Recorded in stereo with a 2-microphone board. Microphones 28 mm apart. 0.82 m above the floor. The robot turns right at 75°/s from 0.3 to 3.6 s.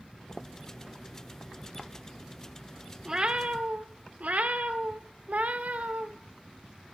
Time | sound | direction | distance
3.0 | a cat meowing | 155° right | 0.5 m